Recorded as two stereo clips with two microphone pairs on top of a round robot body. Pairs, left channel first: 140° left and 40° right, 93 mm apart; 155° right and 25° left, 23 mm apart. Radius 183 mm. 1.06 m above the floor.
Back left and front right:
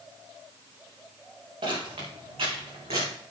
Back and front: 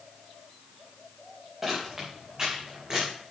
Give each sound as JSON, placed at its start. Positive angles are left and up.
{"t": 1.6, "sound": "footsteps", "azimuth_deg": -55, "distance_m": 4.5}